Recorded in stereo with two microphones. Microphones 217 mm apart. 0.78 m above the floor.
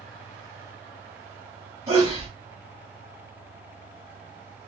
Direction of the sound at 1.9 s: 25° right (ahead or behind).